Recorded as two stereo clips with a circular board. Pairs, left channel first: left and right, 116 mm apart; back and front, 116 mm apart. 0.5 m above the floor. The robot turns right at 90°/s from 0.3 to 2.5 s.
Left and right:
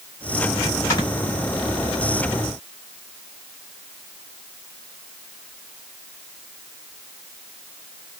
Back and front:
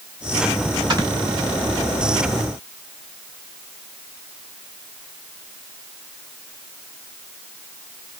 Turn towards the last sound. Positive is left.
turn(degrees=-175)